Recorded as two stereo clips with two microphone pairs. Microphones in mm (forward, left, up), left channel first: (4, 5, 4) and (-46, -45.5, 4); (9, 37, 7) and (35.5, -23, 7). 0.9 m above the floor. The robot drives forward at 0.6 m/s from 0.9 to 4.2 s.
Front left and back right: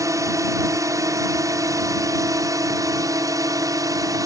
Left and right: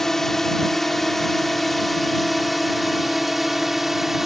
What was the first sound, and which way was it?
A drone, 160° right.